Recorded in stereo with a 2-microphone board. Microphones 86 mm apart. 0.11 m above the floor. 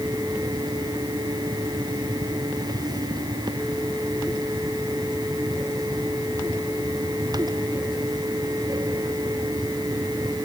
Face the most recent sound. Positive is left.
No sound to turn to.